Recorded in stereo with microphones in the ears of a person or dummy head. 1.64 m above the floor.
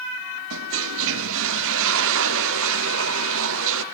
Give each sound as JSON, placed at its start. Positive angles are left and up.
{"t": 0.5, "sound": "a toilet flushing", "side_deg": -75, "distance_m": 0.8}